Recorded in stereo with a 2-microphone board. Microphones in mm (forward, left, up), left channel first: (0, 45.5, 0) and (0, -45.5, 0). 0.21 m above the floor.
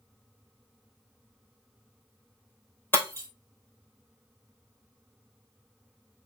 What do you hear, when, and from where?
2.9 s breaking glass: 25° left (ahead or behind), 2 m